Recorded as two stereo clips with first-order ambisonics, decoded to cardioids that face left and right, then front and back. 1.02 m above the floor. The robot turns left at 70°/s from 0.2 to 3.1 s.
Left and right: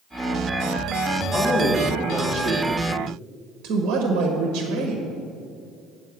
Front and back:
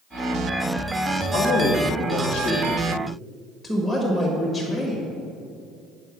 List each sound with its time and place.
1.3 s a woman speaking: 20° left, 1.3 m; by 5.0 s 105° right, 1.3 m